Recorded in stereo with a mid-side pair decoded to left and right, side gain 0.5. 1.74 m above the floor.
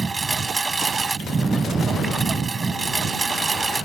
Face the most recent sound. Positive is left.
turn(degrees=-25)